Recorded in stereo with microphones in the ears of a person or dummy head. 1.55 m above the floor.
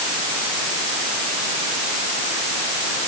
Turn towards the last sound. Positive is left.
No sound to turn to.